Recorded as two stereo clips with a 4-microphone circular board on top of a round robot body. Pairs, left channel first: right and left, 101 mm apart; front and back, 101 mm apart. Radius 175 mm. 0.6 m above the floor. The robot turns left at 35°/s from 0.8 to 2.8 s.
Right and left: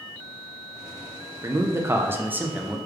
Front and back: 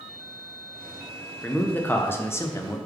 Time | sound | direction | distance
1.4 | a man speaking | 65° left | 0.6 m